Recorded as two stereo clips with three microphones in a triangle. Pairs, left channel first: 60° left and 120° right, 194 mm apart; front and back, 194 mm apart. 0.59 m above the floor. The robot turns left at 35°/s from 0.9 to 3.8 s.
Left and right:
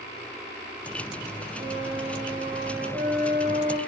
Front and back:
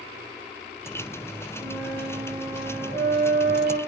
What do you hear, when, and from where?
1.6 s a flute: 90° right, 1.2 m; by 3.8 s 170° right, 1.2 m